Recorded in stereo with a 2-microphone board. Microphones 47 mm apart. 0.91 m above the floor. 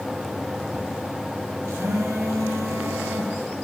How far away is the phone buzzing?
About 8 m.